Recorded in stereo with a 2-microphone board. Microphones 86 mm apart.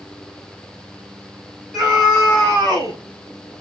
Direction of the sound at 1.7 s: Centre (ahead or behind).